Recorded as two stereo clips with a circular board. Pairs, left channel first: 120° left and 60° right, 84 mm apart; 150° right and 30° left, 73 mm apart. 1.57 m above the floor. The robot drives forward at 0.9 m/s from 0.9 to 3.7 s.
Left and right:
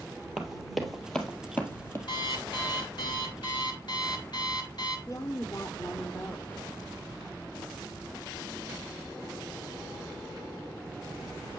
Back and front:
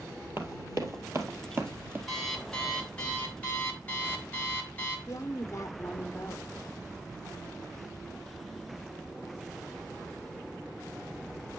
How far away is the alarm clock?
About 3.5 m.